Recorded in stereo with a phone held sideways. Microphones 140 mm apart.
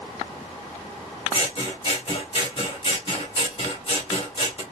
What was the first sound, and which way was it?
Scissors, 45° left (ahead or behind).